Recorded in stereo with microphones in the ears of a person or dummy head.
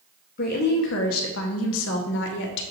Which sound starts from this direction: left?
A woman speaking, at 0.4 s.